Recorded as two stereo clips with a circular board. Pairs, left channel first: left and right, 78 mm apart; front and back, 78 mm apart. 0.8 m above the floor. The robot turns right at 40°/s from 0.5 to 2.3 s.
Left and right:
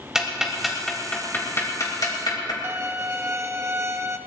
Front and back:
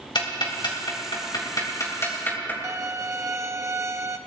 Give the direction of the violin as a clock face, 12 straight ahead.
5 o'clock.